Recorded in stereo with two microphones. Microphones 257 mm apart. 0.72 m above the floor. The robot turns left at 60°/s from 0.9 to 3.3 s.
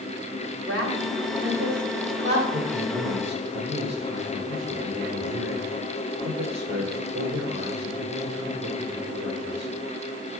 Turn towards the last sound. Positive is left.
turn(degrees=-90)